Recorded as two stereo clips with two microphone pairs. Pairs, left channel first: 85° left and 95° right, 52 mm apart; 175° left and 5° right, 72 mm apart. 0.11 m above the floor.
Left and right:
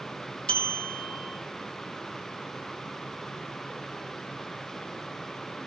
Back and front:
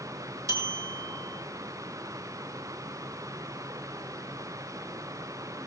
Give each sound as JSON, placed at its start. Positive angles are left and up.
{"t": 0.5, "sound": "a bell", "azimuth_deg": 20, "distance_m": 1.3}